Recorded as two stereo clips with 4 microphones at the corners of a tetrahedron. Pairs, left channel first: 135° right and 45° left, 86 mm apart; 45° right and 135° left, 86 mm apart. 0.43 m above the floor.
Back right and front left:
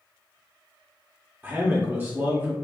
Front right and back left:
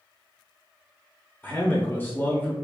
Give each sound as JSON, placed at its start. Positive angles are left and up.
{"t": 1.4, "sound": "a man speaking", "azimuth_deg": 0, "distance_m": 1.1}